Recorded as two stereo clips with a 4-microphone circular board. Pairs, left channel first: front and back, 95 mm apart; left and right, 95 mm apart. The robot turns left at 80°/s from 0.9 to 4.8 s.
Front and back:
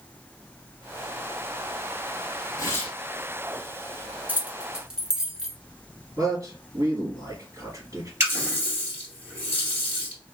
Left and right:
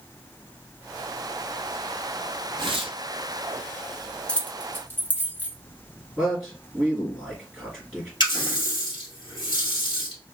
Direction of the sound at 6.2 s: Straight behind.